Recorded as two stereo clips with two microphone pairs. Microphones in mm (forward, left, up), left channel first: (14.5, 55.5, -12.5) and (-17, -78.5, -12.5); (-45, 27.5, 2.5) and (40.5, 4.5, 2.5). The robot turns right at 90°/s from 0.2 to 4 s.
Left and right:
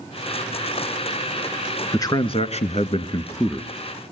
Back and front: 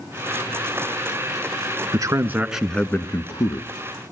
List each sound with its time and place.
1.9 s a man speaking: 15° left, 1.6 m; by 3.7 s 175° left, 1.6 m